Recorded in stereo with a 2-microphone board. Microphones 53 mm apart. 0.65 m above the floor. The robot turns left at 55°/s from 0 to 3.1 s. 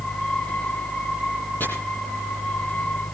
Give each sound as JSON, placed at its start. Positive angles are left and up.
{"t": 1.6, "sound": "chopping", "side_deg": 40, "distance_m": 9.0}